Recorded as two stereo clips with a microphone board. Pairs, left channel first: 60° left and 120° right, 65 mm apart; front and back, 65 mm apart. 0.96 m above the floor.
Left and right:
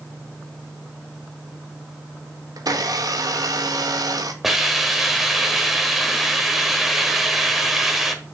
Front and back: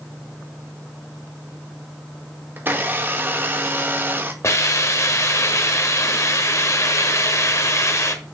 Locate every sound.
2.6 s a blender: 125° right, 1.0 m
4.4 s a hiss: 35° right, 1.2 m